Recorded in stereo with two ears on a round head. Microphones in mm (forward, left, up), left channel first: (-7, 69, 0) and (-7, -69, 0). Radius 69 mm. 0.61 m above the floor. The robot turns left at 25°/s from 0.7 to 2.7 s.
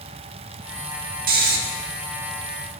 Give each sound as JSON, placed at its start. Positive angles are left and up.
{"t": 1.3, "sound": "snoring", "side_deg": -65, "distance_m": 1.0}